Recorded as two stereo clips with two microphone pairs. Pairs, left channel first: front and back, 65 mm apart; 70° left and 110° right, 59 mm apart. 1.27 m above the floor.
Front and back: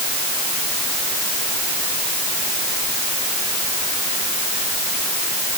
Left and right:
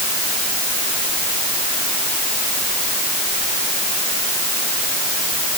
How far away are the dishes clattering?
No dishes clattering in this recording.